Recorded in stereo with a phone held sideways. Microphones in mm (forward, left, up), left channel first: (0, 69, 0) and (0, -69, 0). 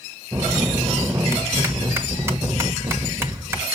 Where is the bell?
20° right (ahead or behind), 1.0 m.